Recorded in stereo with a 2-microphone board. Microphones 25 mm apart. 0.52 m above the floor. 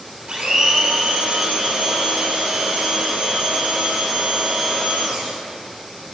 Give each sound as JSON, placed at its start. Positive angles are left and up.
{"t": 0.3, "sound": "a blender", "side_deg": -55, "distance_m": 1.7}